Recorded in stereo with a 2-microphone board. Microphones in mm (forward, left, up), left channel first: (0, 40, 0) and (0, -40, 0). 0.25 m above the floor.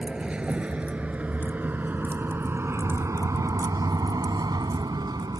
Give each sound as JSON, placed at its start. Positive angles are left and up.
{"t": 0.0, "sound": "a vehicle", "side_deg": -10}